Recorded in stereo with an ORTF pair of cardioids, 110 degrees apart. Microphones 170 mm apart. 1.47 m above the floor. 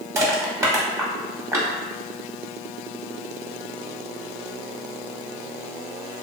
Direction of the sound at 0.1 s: 15° right.